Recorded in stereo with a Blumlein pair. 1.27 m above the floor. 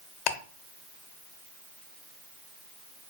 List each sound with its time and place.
0.3 s ticking: 40° left, 0.6 m